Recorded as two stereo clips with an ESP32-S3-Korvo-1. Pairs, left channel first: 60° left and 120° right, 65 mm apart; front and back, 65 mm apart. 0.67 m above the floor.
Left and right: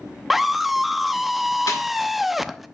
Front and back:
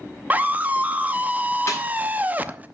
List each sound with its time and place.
0.3 s a scream: 160° left, 0.7 m
1.7 s a snare drum: 45° left, 5 m